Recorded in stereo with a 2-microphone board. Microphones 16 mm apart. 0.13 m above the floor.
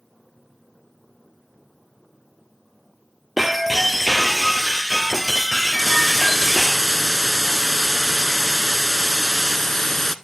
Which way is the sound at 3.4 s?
10° right (ahead or behind).